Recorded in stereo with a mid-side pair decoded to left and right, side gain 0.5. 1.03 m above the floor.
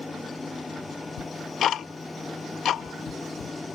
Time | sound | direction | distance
0.0 | a machine running | 20° left | ?
1.2 | ticking | 60° left | ?